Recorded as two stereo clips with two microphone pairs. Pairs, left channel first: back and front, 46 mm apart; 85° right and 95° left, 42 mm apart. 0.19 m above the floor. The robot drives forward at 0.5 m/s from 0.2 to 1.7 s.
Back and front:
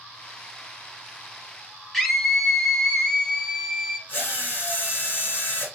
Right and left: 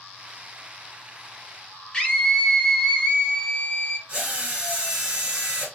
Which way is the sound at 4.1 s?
160° left.